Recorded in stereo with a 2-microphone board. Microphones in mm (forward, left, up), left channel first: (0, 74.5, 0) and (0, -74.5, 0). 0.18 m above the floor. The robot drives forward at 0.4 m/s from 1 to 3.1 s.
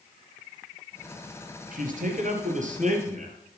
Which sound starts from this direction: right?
A man speaking, at 1.7 s.